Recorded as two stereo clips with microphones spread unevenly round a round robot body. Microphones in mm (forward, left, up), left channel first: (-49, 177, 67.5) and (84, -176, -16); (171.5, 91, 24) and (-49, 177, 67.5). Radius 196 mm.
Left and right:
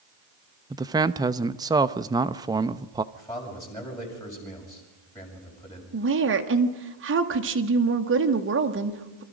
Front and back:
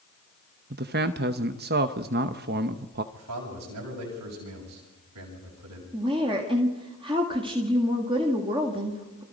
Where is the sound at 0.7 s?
140° right, 0.7 m.